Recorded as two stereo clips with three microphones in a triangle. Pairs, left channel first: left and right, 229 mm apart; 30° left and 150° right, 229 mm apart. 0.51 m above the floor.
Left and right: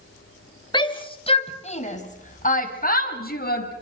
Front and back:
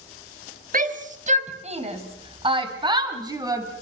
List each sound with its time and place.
0.7 s a shout: 160° left, 3 m; by 3.7 s 135° left, 4 m